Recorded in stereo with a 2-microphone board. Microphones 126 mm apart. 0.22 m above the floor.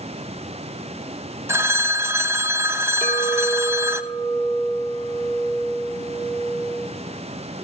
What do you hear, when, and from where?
1.5 s a phone ringing: 20° right (ahead or behind), 0.6 m
3.0 s a clink: 60° left (ahead or behind), 1.7 m